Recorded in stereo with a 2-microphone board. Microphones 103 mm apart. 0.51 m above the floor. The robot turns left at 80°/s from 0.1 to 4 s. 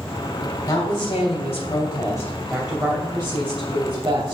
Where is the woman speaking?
150° left, 2.5 m; by 4.3 s 120° right, 2.5 m.